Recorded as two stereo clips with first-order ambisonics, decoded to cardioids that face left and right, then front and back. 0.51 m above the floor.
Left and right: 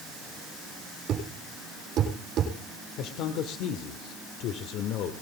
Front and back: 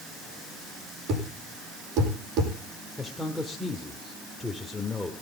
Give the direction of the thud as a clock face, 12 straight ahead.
5 o'clock.